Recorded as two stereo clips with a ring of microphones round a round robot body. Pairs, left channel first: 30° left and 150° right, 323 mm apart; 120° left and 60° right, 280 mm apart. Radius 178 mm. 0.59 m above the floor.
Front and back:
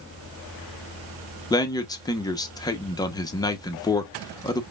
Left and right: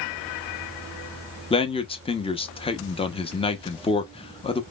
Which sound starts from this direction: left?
A man speaking, at 1.5 s.